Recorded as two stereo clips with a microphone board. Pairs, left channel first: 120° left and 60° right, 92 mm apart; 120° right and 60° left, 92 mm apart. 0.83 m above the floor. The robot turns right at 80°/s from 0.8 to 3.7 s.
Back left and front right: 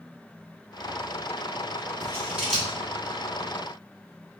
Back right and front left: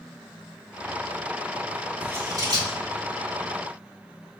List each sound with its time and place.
2.0 s scissors: 10° right, 1.7 m; by 2.8 s 55° left, 1.7 m